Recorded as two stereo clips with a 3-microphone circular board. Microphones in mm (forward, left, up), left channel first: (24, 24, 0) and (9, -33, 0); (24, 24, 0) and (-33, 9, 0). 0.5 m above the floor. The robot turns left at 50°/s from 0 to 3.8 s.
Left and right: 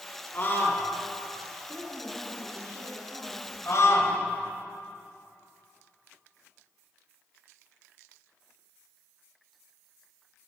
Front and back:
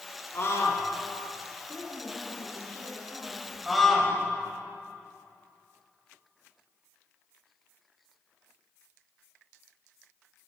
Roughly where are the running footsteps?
I don't hear running footsteps.